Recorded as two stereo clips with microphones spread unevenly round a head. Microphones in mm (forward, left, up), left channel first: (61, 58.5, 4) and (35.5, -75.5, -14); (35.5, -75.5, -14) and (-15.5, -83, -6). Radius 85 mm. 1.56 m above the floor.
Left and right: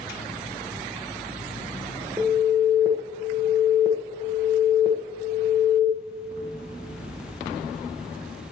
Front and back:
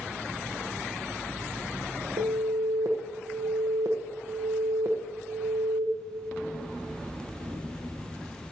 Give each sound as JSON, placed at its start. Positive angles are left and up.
{"t": 2.2, "sound": "an alarm", "azimuth_deg": -175, "distance_m": 1.5}